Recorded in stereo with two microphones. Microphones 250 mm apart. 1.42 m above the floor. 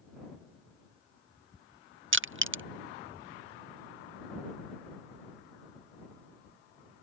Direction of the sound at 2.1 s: 55° right (ahead or behind).